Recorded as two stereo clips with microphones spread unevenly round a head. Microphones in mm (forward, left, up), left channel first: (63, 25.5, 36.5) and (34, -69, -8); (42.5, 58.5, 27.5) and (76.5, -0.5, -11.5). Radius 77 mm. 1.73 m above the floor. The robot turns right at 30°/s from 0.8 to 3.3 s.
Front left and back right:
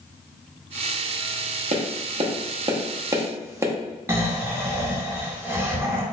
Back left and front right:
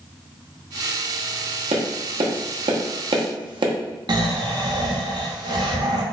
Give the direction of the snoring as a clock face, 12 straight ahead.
1 o'clock.